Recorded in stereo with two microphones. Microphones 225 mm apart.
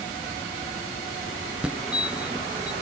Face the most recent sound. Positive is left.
turn(degrees=-5)  # may be behind; listen again after turning